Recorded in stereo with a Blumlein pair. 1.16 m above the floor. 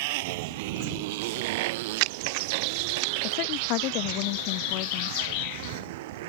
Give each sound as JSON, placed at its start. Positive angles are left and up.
{"t": 0.0, "sound": "a motorcycle", "azimuth_deg": -50}
{"t": 1.2, "sound": "a crack", "azimuth_deg": -50}
{"t": 3.2, "sound": "a woman speaking", "azimuth_deg": 40}